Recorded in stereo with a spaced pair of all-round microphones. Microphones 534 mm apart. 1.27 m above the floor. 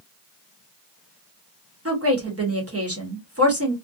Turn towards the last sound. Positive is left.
turn(degrees=-25)  # may be behind; listen again after turning